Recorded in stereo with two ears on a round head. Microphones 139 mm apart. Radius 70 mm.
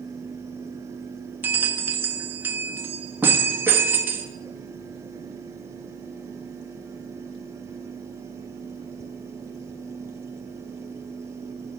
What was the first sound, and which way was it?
A bell, 15° right (ahead or behind).